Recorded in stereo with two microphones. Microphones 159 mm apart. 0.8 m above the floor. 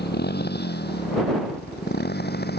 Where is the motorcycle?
80° left; by 2.6 s 75° left (ahead or behind).